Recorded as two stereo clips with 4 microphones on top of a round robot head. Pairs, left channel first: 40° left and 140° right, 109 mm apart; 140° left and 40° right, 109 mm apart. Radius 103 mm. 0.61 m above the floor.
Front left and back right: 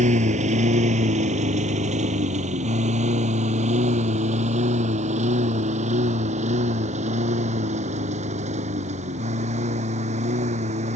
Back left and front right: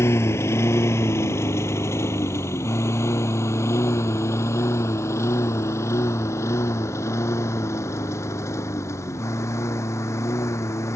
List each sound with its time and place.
0.0 s a lawn mower: 155° right